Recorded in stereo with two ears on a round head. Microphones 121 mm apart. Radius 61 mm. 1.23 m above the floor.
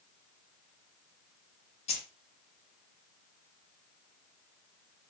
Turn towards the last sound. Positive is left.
turn(degrees=50)  # may be behind; listen again after turning